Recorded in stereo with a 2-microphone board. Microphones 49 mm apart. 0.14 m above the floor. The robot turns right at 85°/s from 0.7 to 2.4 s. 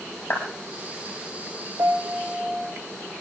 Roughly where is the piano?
Right.